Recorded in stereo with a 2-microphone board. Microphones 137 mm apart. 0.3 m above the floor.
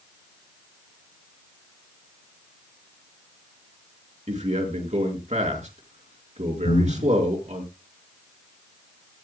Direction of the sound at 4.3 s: 55° right (ahead or behind).